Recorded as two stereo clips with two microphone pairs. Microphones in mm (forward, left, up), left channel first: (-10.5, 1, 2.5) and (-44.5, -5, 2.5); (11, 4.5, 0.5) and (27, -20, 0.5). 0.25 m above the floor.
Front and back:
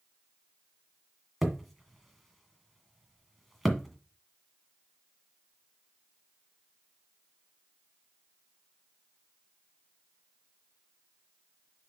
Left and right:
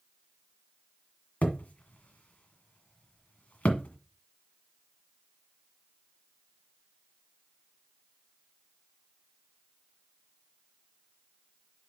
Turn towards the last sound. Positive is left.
turn(degrees=100)